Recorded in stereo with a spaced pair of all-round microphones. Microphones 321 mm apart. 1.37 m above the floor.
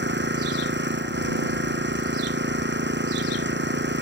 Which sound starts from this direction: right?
An engine running, at 0.0 s.